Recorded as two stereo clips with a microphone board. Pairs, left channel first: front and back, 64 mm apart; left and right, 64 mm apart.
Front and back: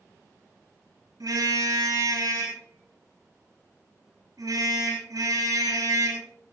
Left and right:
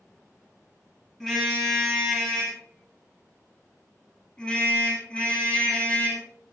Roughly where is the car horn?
Behind.